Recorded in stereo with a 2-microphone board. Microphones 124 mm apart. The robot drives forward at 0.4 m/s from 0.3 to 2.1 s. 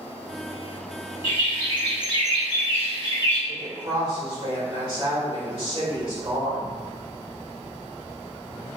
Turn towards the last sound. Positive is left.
turn(degrees=-40)  # may be behind; listen again after turning